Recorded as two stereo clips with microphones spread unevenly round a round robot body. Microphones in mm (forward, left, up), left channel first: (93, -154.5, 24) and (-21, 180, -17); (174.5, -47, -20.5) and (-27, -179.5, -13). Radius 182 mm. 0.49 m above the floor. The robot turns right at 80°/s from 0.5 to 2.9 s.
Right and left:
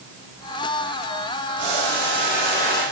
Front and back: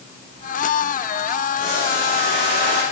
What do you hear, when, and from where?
1.6 s boiling: 130° left, 7.5 m; by 2.8 s 130° right, 7.5 m